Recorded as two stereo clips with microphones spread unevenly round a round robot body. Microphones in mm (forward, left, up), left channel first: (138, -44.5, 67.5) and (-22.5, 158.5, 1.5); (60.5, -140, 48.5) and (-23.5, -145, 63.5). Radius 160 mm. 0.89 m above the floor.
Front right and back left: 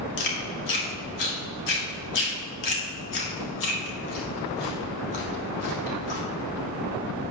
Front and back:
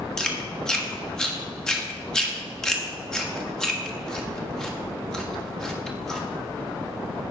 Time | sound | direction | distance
0.2 | chewing | 75° right | 1.7 m